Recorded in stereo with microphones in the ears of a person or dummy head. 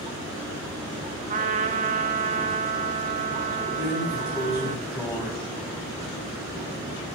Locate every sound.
1.3 s a trumpet: 35° right (ahead or behind), 0.6 m
3.8 s a drawer: 5° right (ahead or behind), 3.5 m